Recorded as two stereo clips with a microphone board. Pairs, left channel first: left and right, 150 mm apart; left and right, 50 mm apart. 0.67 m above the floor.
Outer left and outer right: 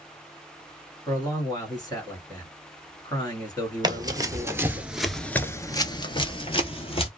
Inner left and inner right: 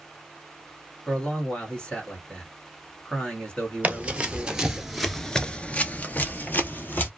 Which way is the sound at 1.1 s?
25° left (ahead or behind).